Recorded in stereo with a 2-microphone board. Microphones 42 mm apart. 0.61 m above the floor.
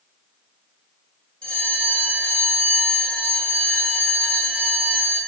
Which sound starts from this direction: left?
A bell, at 1.4 s.